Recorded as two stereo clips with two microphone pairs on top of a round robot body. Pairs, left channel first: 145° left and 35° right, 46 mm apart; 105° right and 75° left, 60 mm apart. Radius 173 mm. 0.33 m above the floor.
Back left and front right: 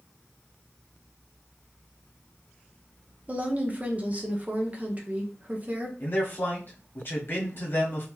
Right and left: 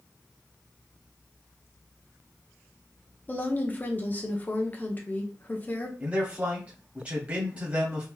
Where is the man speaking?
140° left, 1.4 m.